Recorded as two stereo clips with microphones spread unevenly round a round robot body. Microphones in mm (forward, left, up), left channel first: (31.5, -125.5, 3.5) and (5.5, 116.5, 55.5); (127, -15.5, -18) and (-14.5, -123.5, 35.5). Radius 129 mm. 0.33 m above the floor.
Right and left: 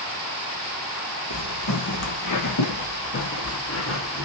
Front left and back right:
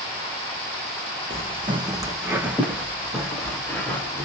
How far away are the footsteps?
About 1.2 m.